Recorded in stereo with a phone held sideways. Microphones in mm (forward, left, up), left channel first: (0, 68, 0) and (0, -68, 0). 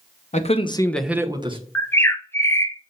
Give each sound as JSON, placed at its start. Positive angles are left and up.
{"t": 0.3, "sound": "a man speaking", "side_deg": 60, "distance_m": 1.1}
{"t": 1.8, "sound": "a bird", "side_deg": 15, "distance_m": 0.8}